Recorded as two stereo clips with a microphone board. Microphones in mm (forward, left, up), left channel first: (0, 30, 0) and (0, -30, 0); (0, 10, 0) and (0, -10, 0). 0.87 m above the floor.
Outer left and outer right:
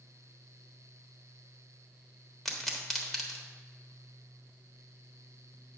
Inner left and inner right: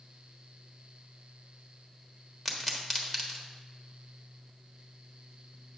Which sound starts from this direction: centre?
A pop, at 2.5 s.